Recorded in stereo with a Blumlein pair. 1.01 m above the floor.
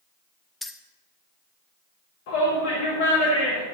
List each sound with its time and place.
0.6 s keys jangling: 5° left, 0.8 m
2.3 s a shout: 50° left, 2.5 m